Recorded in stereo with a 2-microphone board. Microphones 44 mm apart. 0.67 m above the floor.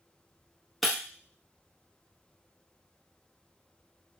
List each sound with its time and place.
0.8 s breaking glass: 5° left (ahead or behind), 0.7 m